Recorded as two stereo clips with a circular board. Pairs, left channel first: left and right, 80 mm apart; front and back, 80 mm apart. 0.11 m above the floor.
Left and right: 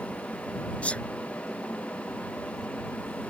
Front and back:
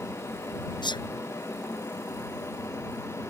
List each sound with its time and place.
0.8 s a sneeze: 15° left